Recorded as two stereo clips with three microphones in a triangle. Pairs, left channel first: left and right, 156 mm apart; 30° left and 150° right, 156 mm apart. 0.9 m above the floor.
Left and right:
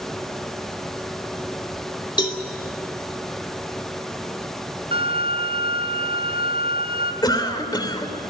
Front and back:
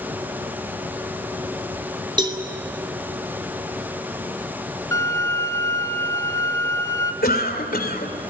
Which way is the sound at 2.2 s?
150° left.